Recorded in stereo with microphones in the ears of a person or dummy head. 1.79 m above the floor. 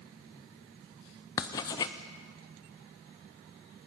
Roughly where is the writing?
Centre.